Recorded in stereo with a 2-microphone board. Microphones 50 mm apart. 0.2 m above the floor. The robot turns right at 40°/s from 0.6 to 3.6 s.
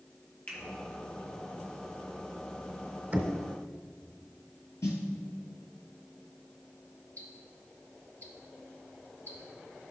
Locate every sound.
0.5 s a finger snap: 30° left (ahead or behind), 3 m
3.1 s knocking: 25° right (ahead or behind), 1.0 m; by 3.4 s 30° right (ahead or behind), 1.0 m
4.8 s a snare drum: 65° left (ahead or behind), 1.9 m
7.2 s ticking: 30° left (ahead or behind), 1.7 m